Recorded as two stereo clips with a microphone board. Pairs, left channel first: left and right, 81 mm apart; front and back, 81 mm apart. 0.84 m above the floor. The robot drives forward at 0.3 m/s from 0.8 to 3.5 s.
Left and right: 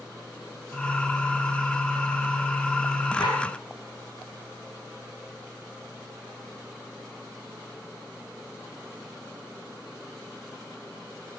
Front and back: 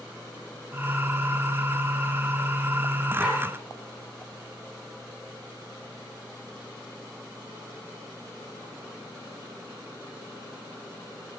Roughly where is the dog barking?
Left.